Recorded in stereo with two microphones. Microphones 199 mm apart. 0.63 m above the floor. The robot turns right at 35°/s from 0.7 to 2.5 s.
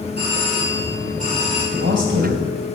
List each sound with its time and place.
0.2 s a doorbell: 60° right, 5.5 m; by 1.6 s 30° right, 5.5 m
1.7 s a man speaking: 65° right (ahead or behind), 2.5 m; by 2.4 s 80° right, 2.5 m